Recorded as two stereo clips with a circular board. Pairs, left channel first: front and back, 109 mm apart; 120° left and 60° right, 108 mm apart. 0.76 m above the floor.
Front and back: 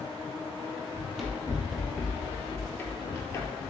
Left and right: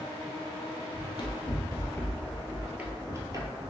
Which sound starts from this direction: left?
Running footsteps, at 0.9 s.